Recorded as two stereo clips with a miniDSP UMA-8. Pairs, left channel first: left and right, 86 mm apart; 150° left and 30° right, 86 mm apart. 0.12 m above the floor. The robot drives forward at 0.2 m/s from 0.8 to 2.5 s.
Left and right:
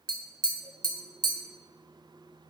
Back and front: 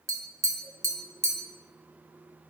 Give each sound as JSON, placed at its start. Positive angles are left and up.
{"t": 0.1, "sound": "tapping", "azimuth_deg": -75, "distance_m": 0.7}